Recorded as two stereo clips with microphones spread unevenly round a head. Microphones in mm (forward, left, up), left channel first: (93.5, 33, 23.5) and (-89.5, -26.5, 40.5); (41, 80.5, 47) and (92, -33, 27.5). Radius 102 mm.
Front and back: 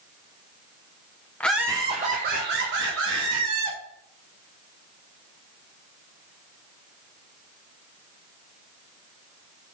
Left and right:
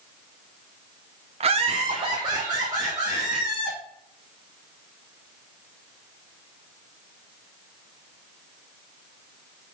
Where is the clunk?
No clunk in this recording.